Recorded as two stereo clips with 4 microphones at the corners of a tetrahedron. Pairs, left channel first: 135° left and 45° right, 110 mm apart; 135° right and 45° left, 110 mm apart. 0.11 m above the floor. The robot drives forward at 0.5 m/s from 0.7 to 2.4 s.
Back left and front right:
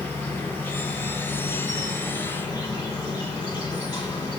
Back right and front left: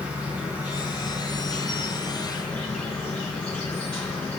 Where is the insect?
100° left, 1.3 m; by 4.4 s 150° left, 1.6 m.